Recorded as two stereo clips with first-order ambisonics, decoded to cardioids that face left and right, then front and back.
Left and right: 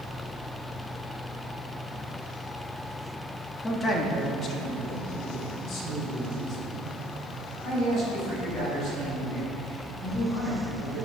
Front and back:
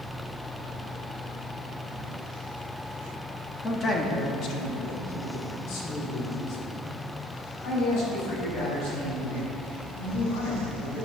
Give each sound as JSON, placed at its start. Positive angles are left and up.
{"t": 3.6, "sound": "a man speaking", "azimuth_deg": 35, "distance_m": 0.9}